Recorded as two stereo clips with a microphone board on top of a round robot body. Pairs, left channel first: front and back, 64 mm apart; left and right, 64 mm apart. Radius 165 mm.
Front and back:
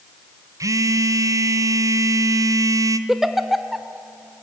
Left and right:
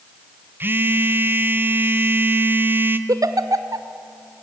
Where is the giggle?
95° right, 1.0 m.